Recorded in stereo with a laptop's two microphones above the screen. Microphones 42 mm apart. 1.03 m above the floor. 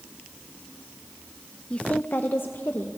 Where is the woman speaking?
25° left (ahead or behind), 0.7 m; by 3.0 s 65° left (ahead or behind), 1.3 m.